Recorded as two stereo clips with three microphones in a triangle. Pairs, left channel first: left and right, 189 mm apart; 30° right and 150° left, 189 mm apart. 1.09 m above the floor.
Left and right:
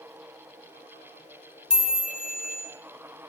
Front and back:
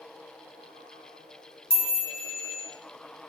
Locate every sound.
1.7 s a chime: 55° right, 3 m